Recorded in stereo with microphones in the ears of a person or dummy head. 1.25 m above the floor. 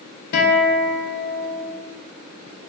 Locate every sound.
0.3 s a guitar: 50° left (ahead or behind), 0.8 m